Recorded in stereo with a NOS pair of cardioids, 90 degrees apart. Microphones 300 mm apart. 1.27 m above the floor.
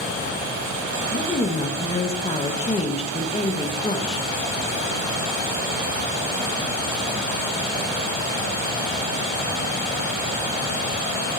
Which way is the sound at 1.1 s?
20° left.